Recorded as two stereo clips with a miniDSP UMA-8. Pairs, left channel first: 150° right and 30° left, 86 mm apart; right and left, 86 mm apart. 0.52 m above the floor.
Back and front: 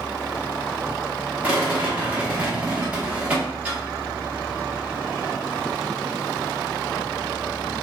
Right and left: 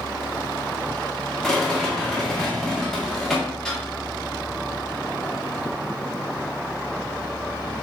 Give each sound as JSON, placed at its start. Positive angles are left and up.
{"t": 1.4, "sound": "a rattle", "azimuth_deg": -10, "distance_m": 1.0}